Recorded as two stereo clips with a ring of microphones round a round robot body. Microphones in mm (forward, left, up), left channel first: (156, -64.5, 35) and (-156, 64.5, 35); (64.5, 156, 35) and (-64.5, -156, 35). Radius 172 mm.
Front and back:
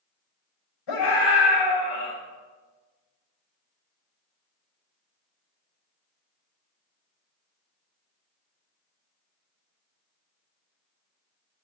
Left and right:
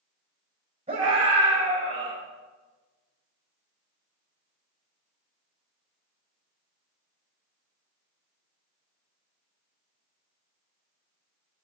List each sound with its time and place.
0.9 s a scream: 40° right, 5 m; by 2.1 s 35° right, 5.5 m